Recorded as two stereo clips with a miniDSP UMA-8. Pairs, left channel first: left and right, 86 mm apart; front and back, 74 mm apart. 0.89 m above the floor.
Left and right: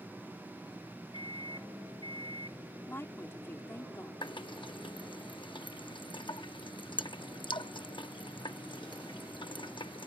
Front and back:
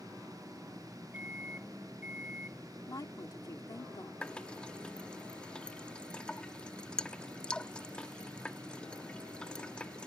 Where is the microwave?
110° left.